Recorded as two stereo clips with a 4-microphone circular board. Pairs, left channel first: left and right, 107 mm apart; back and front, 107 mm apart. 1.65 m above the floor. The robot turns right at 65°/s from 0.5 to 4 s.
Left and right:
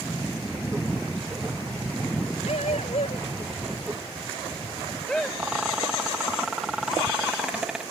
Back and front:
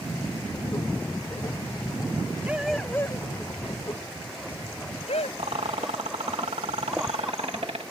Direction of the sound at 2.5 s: 75° left.